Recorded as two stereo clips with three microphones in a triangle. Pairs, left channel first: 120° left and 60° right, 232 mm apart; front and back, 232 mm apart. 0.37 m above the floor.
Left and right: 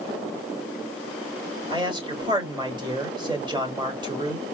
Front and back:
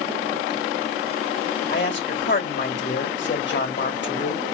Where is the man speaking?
5° left, 1.8 m.